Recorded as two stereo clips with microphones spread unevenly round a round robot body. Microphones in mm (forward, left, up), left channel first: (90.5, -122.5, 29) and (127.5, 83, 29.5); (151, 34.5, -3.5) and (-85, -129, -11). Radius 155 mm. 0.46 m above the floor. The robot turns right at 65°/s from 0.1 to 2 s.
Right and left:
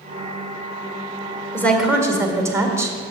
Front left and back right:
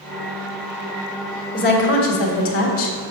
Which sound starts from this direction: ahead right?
A woman speaking, at 1.5 s.